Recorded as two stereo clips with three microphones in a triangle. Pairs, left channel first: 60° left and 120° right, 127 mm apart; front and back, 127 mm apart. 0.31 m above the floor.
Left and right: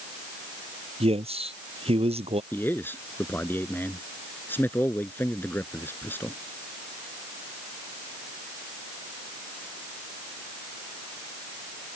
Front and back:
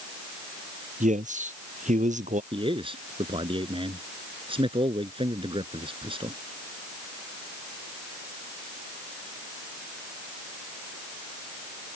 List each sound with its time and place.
1.0 s a man speaking: 160° right
2.5 s a man speaking: 135° left